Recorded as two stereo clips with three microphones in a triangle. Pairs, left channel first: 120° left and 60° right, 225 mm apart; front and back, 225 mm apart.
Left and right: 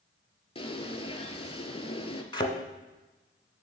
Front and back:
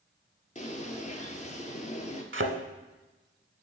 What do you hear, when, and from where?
0.6 s a bird: 55° left, 0.7 m
2.3 s a thud: 175° right, 0.7 m